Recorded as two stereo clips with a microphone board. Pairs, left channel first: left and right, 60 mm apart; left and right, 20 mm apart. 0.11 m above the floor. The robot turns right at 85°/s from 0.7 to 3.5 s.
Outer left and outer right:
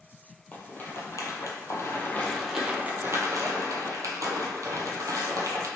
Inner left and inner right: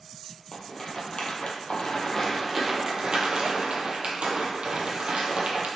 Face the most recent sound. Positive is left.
turn(degrees=-70)  # may be behind; listen again after turning